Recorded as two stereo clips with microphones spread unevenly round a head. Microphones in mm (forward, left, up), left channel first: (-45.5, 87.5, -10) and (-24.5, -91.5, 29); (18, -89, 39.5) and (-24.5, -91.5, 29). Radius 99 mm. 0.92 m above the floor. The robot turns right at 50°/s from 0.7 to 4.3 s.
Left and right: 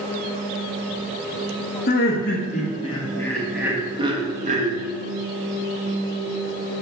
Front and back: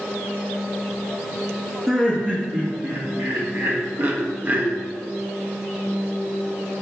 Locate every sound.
1.9 s laughter: 100° left, 1.5 m; by 4.8 s 140° right, 1.5 m